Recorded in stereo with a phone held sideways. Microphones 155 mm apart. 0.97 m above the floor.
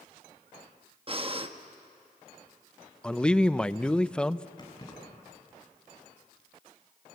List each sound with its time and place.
1.1 s breathing: 35° right (ahead or behind), 0.9 m
3.0 s a man speaking: 5° left (ahead or behind), 0.5 m
4.6 s keys jangling: 25° left (ahead or behind), 7 m